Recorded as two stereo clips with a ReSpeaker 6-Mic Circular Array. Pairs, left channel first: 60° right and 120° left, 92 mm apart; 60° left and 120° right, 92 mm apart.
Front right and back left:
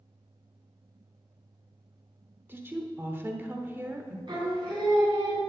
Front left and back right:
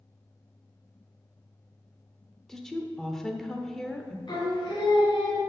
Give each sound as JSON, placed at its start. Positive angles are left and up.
{"t": 2.5, "sound": "a woman speaking", "azimuth_deg": 140, "distance_m": 0.9}
{"t": 4.3, "sound": "singing", "azimuth_deg": 95, "distance_m": 3.0}